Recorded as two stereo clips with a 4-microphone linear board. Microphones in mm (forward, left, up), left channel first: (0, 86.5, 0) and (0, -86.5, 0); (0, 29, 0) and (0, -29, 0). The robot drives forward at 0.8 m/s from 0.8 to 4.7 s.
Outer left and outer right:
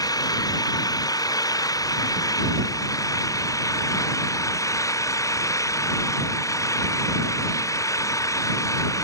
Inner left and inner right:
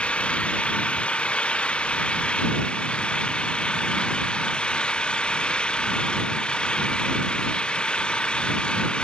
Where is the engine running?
20° left (ahead or behind).